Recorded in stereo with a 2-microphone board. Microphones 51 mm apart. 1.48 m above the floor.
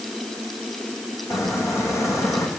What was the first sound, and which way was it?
A squeak, 70° left (ahead or behind).